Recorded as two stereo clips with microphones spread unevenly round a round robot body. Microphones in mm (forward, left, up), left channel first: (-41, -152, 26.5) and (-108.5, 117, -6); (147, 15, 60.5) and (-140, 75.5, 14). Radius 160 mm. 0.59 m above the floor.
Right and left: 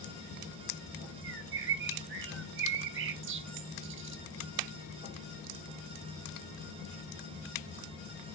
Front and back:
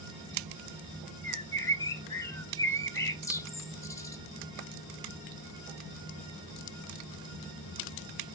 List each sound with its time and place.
1.2 s a bird: 75° left, 0.7 m